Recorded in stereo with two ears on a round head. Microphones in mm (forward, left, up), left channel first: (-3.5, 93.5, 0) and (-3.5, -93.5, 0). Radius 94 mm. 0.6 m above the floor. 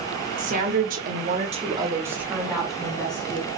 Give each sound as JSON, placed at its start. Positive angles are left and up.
{"t": 0.4, "sound": "a woman speaking", "side_deg": -35, "distance_m": 1.4}